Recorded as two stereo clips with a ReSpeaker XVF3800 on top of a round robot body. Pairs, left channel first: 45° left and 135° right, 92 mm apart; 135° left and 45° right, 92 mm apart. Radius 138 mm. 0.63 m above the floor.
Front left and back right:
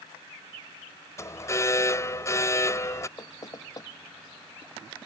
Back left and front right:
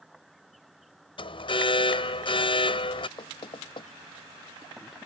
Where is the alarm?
105° left.